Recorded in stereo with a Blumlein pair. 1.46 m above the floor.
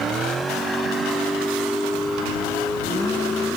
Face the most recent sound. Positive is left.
turn(degrees=10)